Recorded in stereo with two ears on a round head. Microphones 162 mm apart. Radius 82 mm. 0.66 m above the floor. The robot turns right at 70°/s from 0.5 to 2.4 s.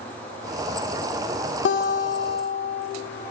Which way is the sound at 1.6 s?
65° left.